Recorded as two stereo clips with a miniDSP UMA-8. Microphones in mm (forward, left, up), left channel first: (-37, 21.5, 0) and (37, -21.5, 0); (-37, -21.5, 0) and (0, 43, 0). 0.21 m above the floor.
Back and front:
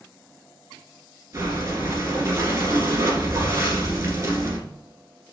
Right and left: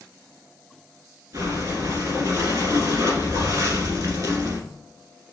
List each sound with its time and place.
1.3 s breathing: 15° left, 1.6 m